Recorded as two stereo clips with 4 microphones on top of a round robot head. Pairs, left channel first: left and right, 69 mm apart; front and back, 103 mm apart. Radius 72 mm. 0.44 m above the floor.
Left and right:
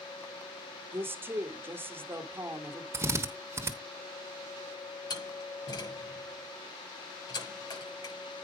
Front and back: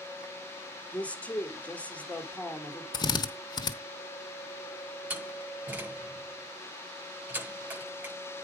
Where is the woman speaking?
70° right, 1.4 m.